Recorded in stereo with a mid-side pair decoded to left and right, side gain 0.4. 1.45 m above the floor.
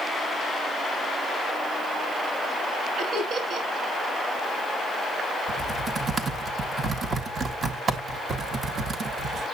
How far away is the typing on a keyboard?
About 1.7 m.